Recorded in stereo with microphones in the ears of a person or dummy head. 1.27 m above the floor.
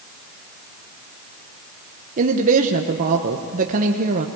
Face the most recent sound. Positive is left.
turn(degrees=-40)  # may be behind; listen again after turning